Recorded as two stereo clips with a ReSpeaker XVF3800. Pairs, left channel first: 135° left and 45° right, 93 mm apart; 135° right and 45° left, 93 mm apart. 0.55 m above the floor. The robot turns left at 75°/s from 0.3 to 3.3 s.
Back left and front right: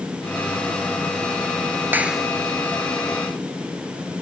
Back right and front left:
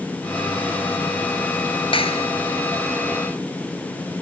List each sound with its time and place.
1.9 s a clap: 115° right; by 2.3 s 140° right